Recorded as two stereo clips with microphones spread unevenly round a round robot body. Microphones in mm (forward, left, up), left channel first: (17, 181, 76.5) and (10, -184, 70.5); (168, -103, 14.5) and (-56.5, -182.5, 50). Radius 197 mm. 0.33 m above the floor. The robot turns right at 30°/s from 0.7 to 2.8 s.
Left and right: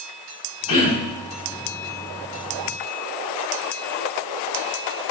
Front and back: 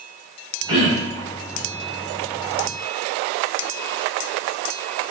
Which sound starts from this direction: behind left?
Throat clearing, at 0.7 s.